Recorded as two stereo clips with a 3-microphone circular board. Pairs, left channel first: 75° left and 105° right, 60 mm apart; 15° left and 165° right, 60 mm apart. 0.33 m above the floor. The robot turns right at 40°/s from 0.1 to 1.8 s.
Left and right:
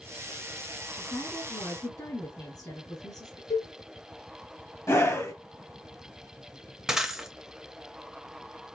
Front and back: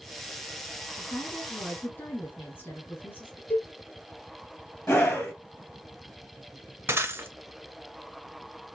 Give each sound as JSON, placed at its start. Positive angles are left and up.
{"t": 0.9, "sound": "a woman speaking", "azimuth_deg": 35, "distance_m": 2.5}
{"t": 3.5, "sound": "a cowbell", "azimuth_deg": 85, "distance_m": 1.6}
{"t": 4.9, "sound": "a scream", "azimuth_deg": 70, "distance_m": 1.6}
{"t": 6.9, "sound": "breaking glass", "azimuth_deg": 175, "distance_m": 0.7}